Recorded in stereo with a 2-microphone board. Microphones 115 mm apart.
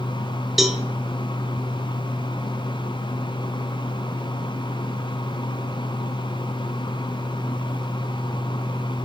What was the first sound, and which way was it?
A cowbell, centre (ahead or behind).